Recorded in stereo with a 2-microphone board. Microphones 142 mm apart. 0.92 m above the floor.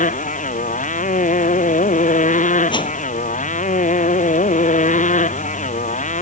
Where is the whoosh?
35° left (ahead or behind).